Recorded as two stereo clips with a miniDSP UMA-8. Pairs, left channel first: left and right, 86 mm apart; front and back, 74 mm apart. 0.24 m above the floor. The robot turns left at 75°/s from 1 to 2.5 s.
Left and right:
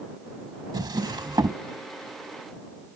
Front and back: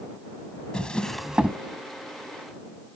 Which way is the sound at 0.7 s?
75° right.